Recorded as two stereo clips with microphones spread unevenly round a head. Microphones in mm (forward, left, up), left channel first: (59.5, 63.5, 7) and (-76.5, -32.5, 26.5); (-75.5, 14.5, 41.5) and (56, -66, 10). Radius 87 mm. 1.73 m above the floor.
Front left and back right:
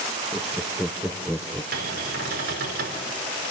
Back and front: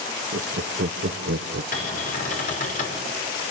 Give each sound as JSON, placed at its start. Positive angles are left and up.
{"t": 0.3, "sound": "laughter", "azimuth_deg": -55, "distance_m": 0.8}
{"t": 1.7, "sound": "a cupboard door", "azimuth_deg": -175, "distance_m": 5.0}